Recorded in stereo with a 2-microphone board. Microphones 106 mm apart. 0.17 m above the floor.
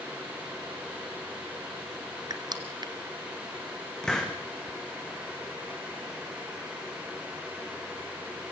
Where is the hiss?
10° left (ahead or behind), 3.5 m.